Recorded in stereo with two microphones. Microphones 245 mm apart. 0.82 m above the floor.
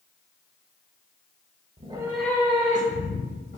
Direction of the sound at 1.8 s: 30° right (ahead or behind).